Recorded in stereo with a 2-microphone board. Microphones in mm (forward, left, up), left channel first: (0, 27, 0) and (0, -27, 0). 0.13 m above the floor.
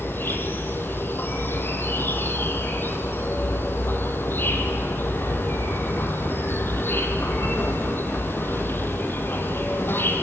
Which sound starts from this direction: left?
An insect, at 0.0 s.